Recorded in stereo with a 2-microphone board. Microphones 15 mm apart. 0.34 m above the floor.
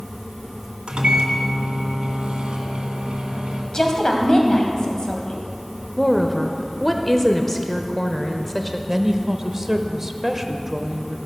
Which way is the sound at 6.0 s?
15° left (ahead or behind).